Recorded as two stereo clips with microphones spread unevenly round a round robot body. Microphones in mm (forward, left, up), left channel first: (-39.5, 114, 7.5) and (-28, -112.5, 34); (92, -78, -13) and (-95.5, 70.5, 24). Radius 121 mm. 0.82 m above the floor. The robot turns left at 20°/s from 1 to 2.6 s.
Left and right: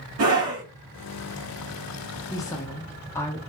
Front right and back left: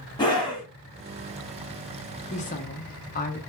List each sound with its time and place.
0.2 s a scream: 105° right, 1.6 m
2.3 s a woman speaking: 20° left, 1.0 m; by 3.4 s 15° left, 1.0 m